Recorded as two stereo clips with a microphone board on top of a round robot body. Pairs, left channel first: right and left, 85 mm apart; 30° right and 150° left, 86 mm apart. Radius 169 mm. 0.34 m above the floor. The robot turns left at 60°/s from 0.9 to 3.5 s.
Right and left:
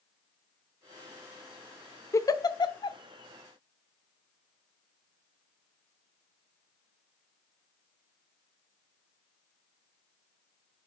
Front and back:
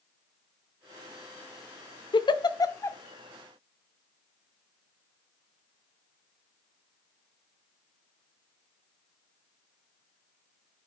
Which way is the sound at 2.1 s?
40° right.